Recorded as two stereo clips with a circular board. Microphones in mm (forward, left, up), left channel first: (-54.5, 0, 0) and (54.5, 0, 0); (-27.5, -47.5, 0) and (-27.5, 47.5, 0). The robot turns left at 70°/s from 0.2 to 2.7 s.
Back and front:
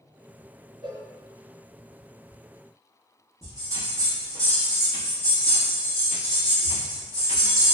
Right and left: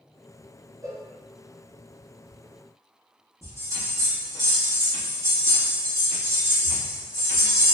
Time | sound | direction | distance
0.8 | a cowbell | 40° left | 0.8 m
3.4 | a bell | 45° left | 1.0 m